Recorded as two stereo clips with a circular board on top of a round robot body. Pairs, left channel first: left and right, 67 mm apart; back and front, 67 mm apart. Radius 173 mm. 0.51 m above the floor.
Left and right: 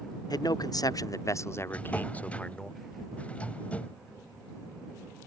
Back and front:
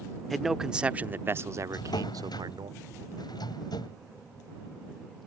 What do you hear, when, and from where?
0.3 s a man speaking: 90° left; by 2.7 s 10° left
1.7 s a drawer: 160° left